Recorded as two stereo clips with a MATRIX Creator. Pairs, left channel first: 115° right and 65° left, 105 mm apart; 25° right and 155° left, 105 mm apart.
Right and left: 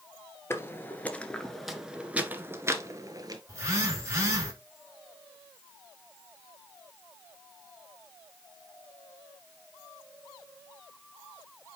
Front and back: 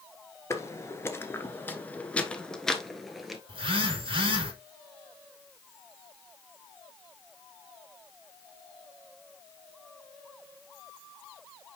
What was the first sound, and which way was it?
Footsteps, 65° right.